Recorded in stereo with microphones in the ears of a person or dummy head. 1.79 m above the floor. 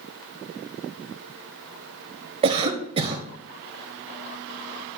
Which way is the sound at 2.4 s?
30° right (ahead or behind).